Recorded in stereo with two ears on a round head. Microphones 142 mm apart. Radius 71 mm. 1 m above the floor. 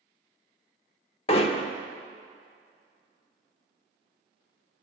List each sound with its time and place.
1.3 s hammering: 35° left (ahead or behind), 0.9 m